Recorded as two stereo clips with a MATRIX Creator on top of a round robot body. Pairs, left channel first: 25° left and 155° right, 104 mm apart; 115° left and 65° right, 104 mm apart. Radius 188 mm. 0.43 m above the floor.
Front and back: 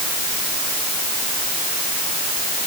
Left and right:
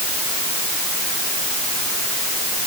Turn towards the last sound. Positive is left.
No sound to turn to.